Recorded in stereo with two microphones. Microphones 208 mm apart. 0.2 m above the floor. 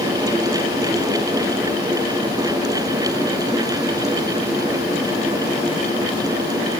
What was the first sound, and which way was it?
Only background noise.